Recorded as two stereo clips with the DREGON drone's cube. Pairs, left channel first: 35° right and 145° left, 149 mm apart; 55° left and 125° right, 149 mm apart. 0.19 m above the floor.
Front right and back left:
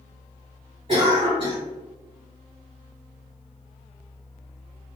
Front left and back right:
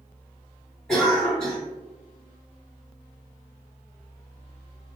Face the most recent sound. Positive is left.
turn(degrees=135)